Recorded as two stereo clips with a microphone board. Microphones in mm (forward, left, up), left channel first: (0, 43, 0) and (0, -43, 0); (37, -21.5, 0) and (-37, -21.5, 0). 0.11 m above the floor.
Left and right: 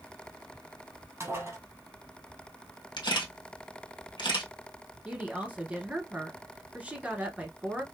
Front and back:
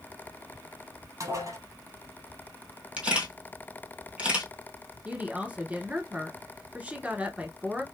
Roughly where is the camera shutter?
Left.